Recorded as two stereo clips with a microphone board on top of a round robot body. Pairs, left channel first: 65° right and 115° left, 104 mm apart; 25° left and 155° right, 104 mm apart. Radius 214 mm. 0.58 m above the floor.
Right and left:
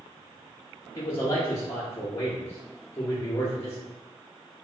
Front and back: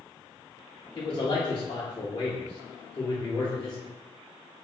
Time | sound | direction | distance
0.9 | a man speaking | 15° right | 1.0 m